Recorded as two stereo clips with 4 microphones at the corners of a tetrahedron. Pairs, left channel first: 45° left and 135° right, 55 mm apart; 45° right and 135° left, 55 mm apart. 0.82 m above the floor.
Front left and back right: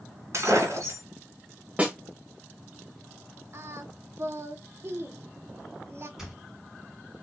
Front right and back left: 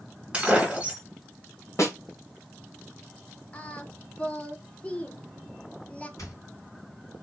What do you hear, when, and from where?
0.3 s breaking glass: 155° right, 1.7 m
1.8 s a snare drum: 70° right, 1.4 m
3.5 s singing: 110° right, 0.7 m
6.2 s a squeak: 55° right, 3 m